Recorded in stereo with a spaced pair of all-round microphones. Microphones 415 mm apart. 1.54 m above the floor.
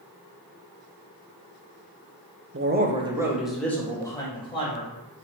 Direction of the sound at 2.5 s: 35° right (ahead or behind).